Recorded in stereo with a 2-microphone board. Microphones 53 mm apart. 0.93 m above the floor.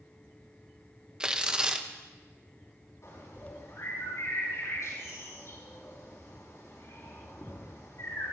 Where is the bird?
80° left, 5.5 m.